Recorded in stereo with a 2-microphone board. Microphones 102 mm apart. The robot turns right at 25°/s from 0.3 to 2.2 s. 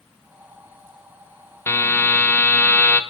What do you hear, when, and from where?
1.7 s a buzzer: 25° left (ahead or behind), 0.5 m; by 3.0 s 15° left (ahead or behind), 0.5 m